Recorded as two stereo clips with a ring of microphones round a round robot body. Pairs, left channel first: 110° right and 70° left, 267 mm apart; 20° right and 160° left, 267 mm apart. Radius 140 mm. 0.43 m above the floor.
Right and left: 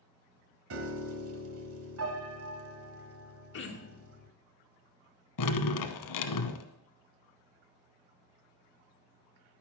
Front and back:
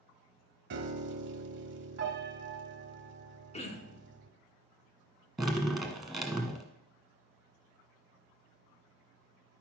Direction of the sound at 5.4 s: 115° right.